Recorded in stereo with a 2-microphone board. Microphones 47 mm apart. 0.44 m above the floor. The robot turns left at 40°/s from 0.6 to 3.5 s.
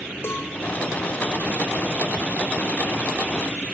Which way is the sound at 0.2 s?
60° left (ahead or behind).